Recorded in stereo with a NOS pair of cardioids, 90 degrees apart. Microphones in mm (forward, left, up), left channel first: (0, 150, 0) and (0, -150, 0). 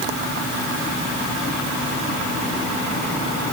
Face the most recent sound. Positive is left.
No sound to turn to.